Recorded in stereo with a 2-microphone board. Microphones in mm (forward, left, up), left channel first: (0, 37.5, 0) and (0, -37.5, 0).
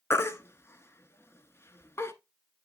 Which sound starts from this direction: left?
A baby crying, at 0.1 s.